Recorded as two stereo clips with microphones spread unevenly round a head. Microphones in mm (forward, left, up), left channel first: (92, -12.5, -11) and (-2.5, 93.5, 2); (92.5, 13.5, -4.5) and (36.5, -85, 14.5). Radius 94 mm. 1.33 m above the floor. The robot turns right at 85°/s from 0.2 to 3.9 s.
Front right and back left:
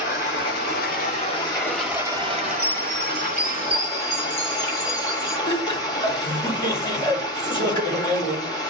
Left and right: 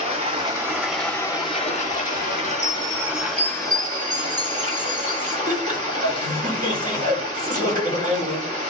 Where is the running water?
95° right, 6 m; by 8.7 s 140° right, 6 m.